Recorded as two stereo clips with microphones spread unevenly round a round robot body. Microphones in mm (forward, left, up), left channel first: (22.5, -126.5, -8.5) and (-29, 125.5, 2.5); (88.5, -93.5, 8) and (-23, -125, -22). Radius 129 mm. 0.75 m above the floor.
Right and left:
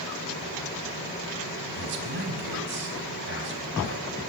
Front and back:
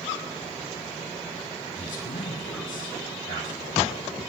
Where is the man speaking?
50° left, 4 m.